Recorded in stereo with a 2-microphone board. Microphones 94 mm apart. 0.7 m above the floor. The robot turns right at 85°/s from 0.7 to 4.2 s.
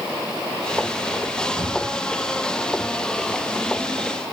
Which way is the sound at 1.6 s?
65° right.